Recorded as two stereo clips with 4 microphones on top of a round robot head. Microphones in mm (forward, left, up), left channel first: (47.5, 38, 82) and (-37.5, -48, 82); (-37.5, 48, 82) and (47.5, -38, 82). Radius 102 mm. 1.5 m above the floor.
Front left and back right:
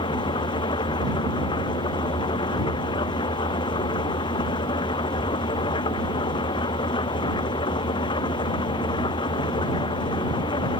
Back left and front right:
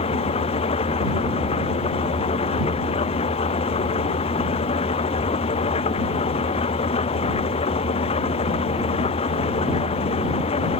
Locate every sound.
0.0 s an engine running: 95° left